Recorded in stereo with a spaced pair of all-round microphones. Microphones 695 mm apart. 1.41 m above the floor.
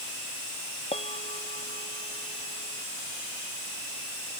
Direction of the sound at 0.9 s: 10° left (ahead or behind).